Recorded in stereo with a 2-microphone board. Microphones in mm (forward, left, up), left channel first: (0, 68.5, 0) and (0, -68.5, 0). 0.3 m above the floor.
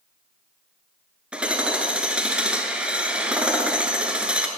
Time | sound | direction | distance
1.3 | hammering | 10° right (ahead or behind) | 0.9 m